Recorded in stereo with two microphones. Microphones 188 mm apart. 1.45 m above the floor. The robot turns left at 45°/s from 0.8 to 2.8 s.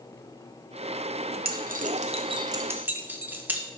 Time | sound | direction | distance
1.4 | keys jangling | 55° right (ahead or behind) | 0.6 m